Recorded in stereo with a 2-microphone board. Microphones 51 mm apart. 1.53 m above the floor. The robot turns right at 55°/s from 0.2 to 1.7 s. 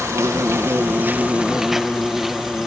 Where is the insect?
90° right; by 2.7 s 5° right.